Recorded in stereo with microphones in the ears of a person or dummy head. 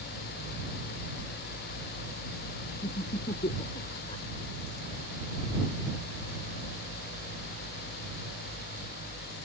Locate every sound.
2.8 s laughter: 25° left (ahead or behind)